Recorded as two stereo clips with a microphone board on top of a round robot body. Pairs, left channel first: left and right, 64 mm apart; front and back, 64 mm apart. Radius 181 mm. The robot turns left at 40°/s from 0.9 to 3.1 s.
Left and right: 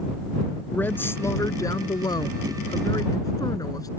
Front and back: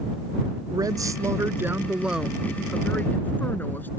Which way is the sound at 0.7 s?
150° left.